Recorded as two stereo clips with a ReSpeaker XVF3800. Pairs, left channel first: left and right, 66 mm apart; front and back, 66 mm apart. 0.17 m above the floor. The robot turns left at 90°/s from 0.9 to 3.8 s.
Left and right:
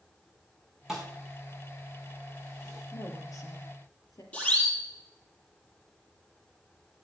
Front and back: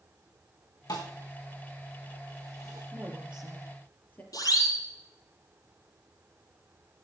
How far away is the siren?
About 6 m.